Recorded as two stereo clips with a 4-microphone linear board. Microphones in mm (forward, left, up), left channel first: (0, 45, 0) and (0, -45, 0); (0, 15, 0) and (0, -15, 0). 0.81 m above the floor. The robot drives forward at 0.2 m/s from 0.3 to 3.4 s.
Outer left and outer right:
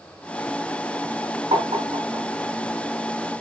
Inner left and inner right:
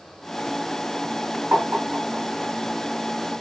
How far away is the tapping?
About 3 m.